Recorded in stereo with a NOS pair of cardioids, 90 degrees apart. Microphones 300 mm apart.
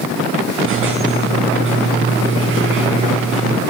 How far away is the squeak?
About 6.5 m.